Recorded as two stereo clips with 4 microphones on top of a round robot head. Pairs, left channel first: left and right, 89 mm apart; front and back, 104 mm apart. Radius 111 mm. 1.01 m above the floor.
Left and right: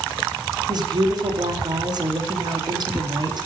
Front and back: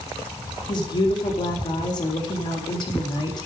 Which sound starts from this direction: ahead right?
A woman speaking, at 0.7 s.